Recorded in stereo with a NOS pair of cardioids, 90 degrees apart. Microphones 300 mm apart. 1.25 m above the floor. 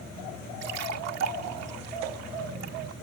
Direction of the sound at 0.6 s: 65° right.